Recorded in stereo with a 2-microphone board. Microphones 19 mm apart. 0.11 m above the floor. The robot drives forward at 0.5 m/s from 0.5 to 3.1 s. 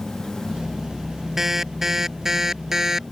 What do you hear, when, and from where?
1.4 s an alarm: 20° right (ahead or behind); by 3.0 s 25° right (ahead or behind)